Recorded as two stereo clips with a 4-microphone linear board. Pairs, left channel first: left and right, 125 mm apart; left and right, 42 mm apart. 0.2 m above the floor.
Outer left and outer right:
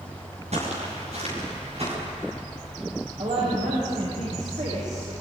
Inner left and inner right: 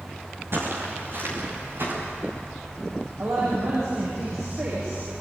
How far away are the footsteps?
About 9 m.